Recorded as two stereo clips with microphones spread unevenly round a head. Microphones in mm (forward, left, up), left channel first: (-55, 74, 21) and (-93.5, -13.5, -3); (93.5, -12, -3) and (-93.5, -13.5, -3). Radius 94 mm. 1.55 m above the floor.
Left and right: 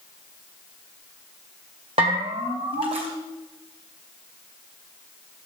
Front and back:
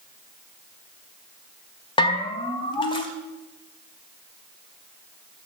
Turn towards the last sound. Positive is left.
turn(degrees=-60)